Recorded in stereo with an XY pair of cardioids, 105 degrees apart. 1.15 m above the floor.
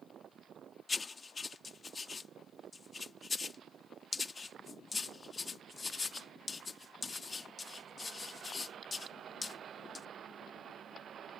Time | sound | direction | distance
0.9 | writing | 30° left | ?